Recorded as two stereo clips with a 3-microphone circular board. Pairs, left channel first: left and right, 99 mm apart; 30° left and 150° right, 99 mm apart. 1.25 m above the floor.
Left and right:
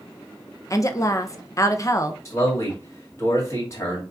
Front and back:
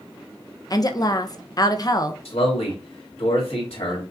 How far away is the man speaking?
About 2 m.